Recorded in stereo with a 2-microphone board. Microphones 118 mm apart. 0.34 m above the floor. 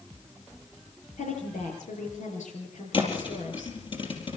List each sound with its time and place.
1.2 s a woman speaking: 80° left, 7.5 m
2.9 s a thud: 45° left (ahead or behind), 4 m